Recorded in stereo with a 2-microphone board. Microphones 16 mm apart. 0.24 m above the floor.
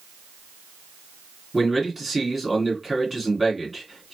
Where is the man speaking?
5° left (ahead or behind), 2.5 m.